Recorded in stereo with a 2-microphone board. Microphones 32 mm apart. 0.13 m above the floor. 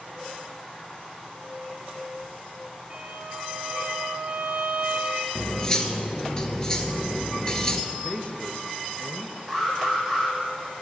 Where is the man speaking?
45° left (ahead or behind), 1.6 m.